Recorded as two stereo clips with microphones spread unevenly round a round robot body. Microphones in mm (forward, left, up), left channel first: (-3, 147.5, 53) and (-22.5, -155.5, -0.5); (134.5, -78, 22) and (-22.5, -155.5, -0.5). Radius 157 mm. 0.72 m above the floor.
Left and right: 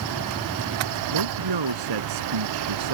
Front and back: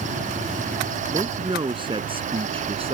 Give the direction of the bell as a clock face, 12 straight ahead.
No bell in this recording.